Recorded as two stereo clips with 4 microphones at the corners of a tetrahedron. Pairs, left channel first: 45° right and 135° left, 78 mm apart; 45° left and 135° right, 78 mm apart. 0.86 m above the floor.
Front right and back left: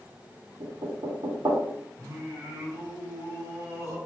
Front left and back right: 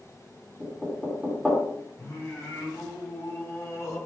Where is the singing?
95° left, 2 m.